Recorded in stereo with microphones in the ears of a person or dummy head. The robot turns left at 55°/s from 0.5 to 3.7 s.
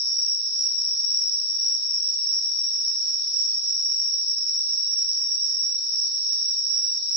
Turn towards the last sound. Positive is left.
turn(degrees=-60)